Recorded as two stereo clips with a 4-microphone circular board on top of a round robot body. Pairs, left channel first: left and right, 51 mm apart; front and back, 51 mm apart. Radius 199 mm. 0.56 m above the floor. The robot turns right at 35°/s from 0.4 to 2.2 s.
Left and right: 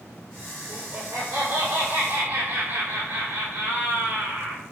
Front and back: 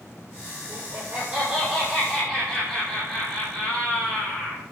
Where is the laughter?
125° right, 5 m; by 4.6 s 75° right, 5 m.